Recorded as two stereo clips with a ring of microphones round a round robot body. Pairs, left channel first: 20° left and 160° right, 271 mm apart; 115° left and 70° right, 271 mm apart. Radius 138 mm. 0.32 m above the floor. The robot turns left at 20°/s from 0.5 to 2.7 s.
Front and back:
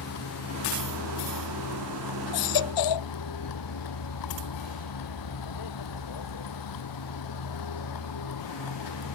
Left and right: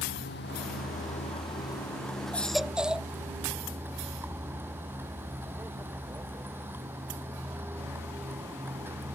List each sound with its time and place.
0.0 s a vehicle: 60° left; by 9.2 s 15° left
2.3 s a baby crying: 25° left; by 3.1 s 20° left